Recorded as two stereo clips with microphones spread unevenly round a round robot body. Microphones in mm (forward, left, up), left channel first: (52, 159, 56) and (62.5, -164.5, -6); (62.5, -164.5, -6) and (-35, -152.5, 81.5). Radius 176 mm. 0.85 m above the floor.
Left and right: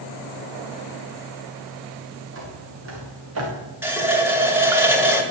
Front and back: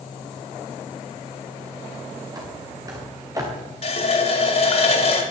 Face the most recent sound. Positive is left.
turn(degrees=-5)